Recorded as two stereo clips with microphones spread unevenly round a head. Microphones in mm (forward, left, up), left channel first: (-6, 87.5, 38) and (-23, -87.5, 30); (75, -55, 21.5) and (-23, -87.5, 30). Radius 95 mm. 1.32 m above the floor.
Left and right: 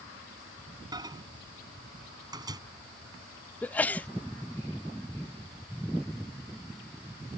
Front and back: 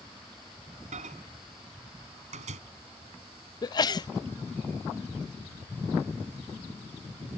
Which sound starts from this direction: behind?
A microwave, at 0.9 s.